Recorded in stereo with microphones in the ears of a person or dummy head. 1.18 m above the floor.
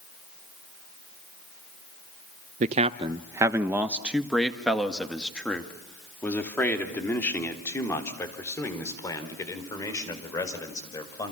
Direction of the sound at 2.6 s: 45° right (ahead or behind).